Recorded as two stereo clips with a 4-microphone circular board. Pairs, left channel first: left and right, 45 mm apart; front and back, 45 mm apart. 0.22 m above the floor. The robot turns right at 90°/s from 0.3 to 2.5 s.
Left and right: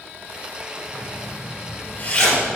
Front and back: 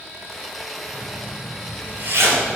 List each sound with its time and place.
0.9 s a zipper: 40° left, 3.5 m; by 2.6 s straight behind, 3.5 m